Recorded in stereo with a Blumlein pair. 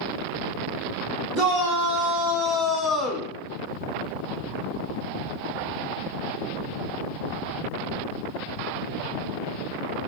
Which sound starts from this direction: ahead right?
A shout, at 1.3 s.